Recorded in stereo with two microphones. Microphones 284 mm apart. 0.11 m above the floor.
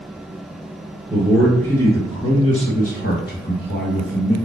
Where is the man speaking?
Centre (ahead or behind), 1.6 m; by 4.4 s 45° left (ahead or behind), 2 m.